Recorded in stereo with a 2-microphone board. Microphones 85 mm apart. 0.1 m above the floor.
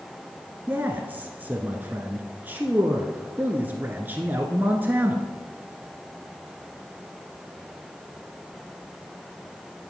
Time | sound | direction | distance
0.7 | a man speaking | 20° right (ahead or behind) | 1.1 m